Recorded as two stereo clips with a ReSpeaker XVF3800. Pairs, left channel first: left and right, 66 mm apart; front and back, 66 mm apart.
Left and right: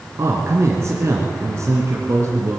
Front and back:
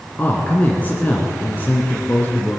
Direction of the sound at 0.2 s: 60° right.